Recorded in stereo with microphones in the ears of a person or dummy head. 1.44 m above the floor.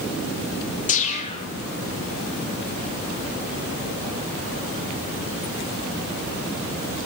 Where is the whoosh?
35° left (ahead or behind), 5.5 m.